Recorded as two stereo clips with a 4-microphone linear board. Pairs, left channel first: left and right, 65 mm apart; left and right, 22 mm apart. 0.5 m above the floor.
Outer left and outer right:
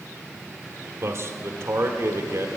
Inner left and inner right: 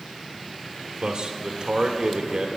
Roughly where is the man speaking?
Right.